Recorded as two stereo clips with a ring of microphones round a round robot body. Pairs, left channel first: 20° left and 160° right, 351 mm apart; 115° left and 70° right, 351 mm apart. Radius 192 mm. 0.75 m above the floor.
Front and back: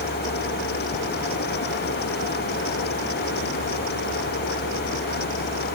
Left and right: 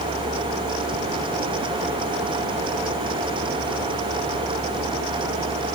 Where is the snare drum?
No snare drum in this recording.